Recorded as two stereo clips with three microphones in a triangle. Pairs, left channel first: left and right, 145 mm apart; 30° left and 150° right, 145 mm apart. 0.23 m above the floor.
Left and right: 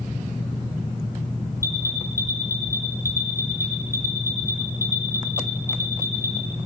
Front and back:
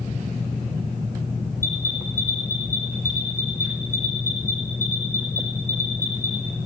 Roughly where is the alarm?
Right.